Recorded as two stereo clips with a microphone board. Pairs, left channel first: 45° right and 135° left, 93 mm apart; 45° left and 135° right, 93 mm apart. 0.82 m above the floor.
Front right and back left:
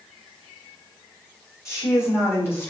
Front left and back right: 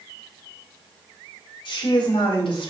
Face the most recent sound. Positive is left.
turn(degrees=20)